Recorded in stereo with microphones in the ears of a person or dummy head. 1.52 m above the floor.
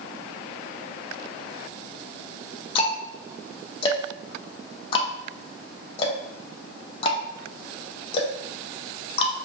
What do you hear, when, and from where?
2.8 s ticking: 30° left (ahead or behind), 0.8 m